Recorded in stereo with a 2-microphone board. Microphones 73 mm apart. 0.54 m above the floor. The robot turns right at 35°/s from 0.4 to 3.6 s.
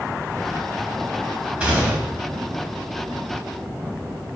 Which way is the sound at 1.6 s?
15° right (ahead or behind).